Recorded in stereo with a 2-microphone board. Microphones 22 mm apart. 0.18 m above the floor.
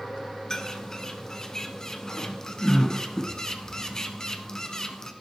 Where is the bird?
25° left (ahead or behind), 1.1 m.